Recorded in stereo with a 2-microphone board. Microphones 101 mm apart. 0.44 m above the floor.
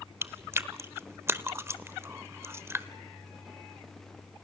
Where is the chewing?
25° right (ahead or behind), 0.8 m.